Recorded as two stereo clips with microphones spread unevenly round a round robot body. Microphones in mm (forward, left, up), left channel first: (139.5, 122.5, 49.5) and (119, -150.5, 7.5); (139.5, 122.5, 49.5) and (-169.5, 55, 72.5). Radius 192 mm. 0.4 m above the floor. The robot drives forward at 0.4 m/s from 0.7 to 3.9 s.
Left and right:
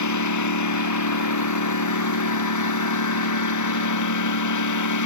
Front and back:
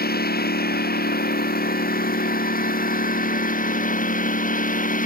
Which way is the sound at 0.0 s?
75° left.